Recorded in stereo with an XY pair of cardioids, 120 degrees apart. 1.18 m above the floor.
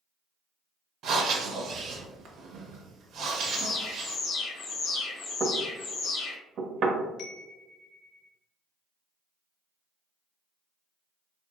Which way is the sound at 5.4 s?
55° right.